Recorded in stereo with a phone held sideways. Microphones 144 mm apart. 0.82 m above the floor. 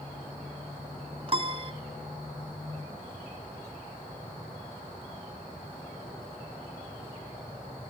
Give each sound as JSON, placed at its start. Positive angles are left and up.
{"t": 1.3, "sound": "a piano", "side_deg": -40, "distance_m": 1.2}